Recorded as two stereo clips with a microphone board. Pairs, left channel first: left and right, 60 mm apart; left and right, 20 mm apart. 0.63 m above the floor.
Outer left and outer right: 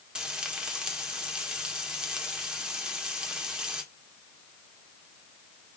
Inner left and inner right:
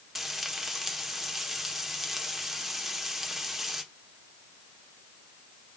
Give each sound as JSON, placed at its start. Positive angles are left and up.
{"t": 0.1, "sound": "frying", "side_deg": -15, "distance_m": 1.5}